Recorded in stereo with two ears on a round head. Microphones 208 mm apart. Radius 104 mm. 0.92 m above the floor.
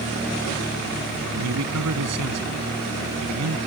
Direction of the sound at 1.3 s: 80° right.